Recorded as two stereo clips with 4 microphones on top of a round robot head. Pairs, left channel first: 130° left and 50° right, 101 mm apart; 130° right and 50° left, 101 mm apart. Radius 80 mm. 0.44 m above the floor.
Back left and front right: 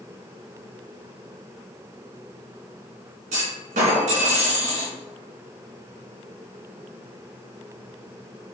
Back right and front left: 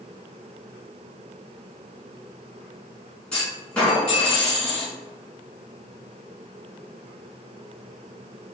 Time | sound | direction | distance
3.3 | a clunk | 50° right | 1.2 m